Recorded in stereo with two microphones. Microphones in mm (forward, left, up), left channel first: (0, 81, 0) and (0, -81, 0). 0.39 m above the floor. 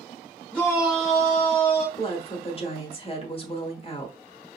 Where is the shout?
5° left (ahead or behind), 0.8 m; by 1.9 s 60° left (ahead or behind), 1.5 m.